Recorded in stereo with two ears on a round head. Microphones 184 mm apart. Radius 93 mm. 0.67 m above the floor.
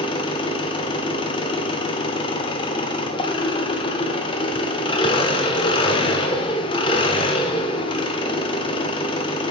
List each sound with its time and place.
0.0 s an engine running: 25° left (ahead or behind), 0.9 m